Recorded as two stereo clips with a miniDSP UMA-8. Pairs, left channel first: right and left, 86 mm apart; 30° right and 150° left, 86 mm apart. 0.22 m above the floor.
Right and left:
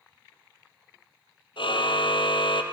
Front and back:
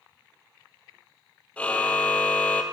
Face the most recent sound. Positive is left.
turn(degrees=-105)